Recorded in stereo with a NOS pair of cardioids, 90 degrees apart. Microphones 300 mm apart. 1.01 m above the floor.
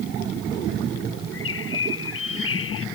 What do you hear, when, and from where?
1.3 s a bird: 45° left